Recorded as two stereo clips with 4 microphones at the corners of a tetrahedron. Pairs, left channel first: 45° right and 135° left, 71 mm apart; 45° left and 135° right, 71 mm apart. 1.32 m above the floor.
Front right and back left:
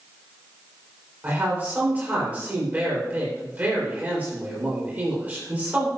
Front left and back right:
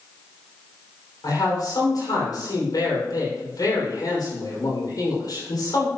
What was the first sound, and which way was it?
A man speaking, 70° left.